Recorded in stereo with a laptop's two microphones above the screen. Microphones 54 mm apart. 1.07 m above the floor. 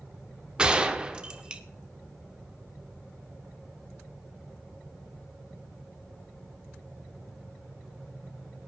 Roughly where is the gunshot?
Centre.